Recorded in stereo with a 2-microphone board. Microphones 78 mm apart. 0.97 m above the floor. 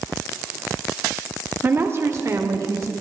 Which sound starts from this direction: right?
A woman speaking, at 1.6 s.